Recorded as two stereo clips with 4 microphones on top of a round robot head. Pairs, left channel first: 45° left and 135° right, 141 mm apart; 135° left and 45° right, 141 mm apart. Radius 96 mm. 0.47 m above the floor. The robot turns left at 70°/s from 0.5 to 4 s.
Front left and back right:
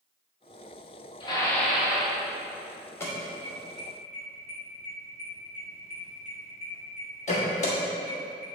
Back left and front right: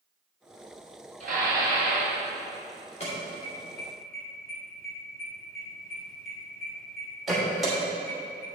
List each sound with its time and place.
1.2 s dishes clattering: 10° right, 2.5 m; by 2.2 s 80° right, 2.5 m
3.0 s an alarm: 115° left, 2.5 m; by 8.5 s 45° left, 2.5 m